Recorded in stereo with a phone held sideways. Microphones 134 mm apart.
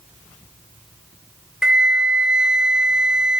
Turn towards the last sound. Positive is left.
turn(degrees=-5)  # may be behind; listen again after turning